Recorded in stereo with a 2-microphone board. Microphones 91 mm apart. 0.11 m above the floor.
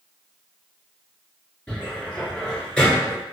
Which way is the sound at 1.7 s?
10° left (ahead or behind).